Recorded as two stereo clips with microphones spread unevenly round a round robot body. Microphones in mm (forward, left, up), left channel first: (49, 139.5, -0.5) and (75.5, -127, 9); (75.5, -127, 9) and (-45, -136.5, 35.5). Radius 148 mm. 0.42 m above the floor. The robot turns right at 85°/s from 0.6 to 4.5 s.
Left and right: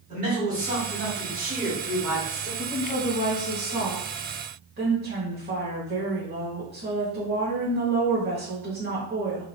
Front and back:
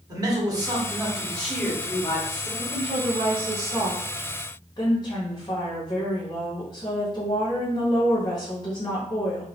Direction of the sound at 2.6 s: 160° left.